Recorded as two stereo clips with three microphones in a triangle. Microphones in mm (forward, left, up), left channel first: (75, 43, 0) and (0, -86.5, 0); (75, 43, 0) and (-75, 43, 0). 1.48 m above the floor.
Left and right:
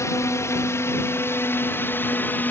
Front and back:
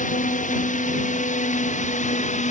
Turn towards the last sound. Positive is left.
turn(degrees=-15)